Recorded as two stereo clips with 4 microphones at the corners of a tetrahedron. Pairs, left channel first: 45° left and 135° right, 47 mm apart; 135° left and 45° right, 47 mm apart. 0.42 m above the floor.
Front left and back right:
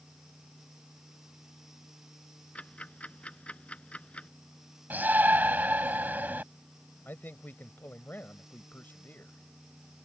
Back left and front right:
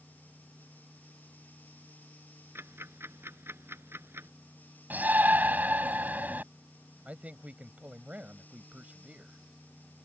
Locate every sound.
2.5 s ticking: 20° right
4.9 s a shout: 90° right
7.0 s a man speaking: 10° left